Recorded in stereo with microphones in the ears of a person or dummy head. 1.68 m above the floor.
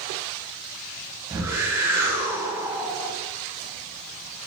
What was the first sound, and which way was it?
A whoosh, 10° right (ahead or behind).